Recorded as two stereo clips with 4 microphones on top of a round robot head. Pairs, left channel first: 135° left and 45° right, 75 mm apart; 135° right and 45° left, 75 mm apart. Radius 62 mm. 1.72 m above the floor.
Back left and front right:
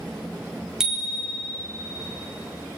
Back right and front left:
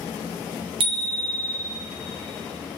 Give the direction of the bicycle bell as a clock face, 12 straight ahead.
11 o'clock.